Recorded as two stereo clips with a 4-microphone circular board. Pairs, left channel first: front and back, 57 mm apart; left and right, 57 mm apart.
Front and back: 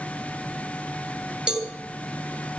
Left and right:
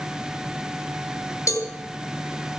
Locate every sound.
1.5 s a cowbell: 105° left, 3 m